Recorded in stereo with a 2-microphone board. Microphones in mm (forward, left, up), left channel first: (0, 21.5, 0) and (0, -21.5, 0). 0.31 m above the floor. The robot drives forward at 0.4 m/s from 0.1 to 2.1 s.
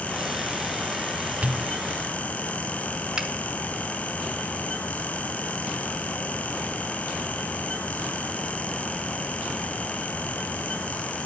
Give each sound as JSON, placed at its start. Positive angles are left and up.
{"t": 1.4, "sound": "a pop", "side_deg": -35, "distance_m": 0.6}
{"t": 3.2, "sound": "a finger snap", "side_deg": -15, "distance_m": 1.5}